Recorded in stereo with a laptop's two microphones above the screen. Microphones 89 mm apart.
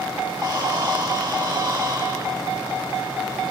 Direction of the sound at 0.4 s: 55° right (ahead or behind).